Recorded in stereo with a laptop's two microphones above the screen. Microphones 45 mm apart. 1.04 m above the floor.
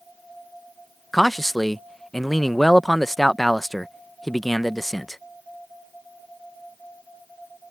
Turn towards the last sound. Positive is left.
turn(degrees=5)  # may be behind; listen again after turning